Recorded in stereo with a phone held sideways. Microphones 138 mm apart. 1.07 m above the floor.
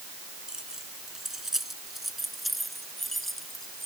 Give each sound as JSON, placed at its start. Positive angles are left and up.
{"t": 0.5, "sound": "keys jangling", "side_deg": -5}